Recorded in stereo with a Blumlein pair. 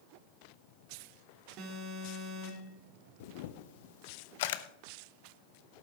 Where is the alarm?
40° right, 2.5 m.